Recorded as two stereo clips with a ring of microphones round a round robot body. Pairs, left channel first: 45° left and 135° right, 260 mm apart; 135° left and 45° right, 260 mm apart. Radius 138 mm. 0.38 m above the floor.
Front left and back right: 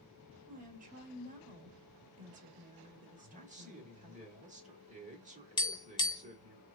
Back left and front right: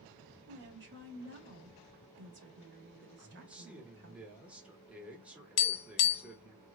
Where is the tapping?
115° left, 0.7 m.